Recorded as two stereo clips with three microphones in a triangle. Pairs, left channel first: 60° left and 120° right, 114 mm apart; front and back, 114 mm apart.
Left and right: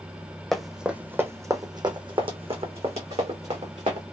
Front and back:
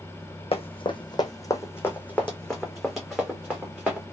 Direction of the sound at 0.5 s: 25° right.